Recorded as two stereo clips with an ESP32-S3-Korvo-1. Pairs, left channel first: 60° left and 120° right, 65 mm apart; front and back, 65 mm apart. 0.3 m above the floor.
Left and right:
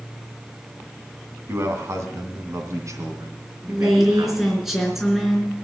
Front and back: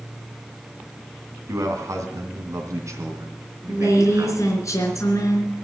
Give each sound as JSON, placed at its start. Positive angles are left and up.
{"t": 1.5, "sound": "a man speaking", "azimuth_deg": -160, "distance_m": 2.5}
{"t": 3.7, "sound": "a woman speaking", "azimuth_deg": -35, "distance_m": 4.0}